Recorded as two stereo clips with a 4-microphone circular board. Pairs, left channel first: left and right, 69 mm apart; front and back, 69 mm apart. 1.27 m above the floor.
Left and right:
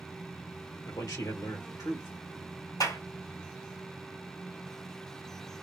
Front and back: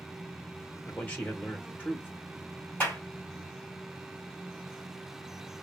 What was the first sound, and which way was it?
A man speaking, 65° left.